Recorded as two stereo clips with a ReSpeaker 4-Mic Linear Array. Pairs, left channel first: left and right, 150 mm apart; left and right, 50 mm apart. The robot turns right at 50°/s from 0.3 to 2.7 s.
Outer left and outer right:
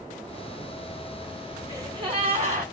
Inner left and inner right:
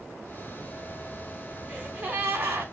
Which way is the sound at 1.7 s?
160° right.